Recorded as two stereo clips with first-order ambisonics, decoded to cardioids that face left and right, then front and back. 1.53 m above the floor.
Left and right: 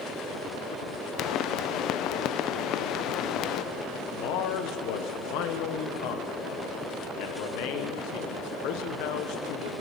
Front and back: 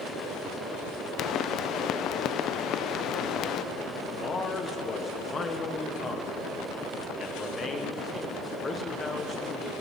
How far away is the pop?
About 0.5 m.